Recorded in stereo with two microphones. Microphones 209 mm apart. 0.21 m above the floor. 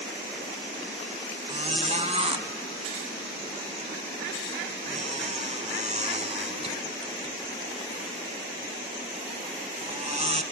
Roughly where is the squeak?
Right.